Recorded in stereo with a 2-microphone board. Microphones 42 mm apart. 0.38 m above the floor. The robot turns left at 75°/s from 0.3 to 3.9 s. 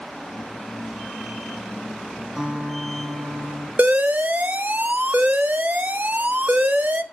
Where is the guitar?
5° right, 3.5 m; by 3.7 s 105° right, 3.5 m.